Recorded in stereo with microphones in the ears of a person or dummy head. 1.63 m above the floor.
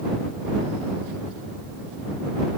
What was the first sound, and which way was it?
Only background noise.